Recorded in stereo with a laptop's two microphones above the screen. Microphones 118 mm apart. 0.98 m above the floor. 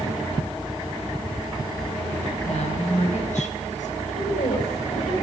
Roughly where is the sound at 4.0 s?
Left.